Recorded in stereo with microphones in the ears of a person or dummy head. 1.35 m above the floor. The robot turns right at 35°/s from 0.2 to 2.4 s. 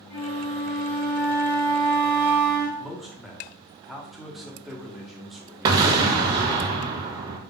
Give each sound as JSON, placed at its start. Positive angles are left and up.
{"t": 0.1, "sound": "a flute", "azimuth_deg": 110, "distance_m": 1.4}
{"t": 2.8, "sound": "a man speaking", "side_deg": 0, "distance_m": 0.9}
{"t": 5.7, "sound": "an explosion", "side_deg": -20, "distance_m": 0.6}